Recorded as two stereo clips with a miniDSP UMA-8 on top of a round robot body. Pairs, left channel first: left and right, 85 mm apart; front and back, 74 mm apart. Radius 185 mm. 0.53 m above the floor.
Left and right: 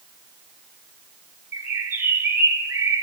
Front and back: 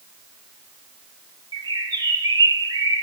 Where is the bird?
155° right, 1.4 m.